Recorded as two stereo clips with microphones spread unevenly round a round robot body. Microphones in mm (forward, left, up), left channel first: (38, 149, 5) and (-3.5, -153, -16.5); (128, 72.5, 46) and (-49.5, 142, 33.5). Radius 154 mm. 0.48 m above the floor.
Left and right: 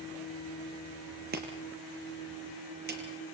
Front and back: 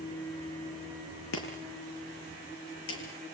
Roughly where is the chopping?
Ahead right.